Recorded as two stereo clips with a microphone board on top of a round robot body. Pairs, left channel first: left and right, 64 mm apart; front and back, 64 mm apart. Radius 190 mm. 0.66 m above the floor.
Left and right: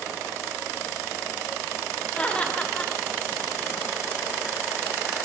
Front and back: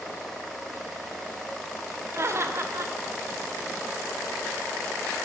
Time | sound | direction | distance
2.1 | laughter | 155° left | 0.9 m